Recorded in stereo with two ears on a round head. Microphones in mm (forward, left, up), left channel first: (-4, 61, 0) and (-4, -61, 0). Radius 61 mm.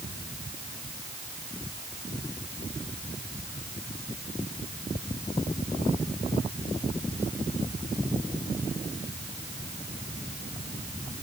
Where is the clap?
No clap in this recording.